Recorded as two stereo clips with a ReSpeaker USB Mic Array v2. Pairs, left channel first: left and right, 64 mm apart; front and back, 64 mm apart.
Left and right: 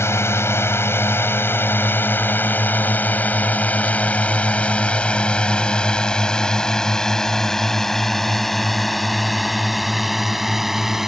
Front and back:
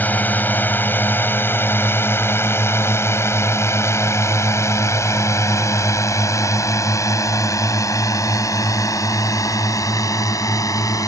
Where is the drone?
55° left; by 11.1 s 5° right.